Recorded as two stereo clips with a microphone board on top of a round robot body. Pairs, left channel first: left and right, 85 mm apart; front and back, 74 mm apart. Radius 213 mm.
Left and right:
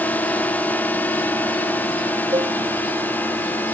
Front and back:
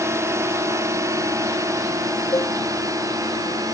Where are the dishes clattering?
45° right.